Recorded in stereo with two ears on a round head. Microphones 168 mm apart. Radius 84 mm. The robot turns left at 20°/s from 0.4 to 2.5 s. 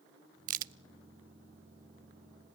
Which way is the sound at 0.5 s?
40° right (ahead or behind).